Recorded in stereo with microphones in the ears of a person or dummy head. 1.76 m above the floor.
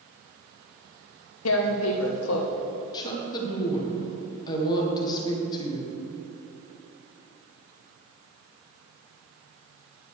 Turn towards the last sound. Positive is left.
turn(degrees=30)  # may be behind; listen again after turning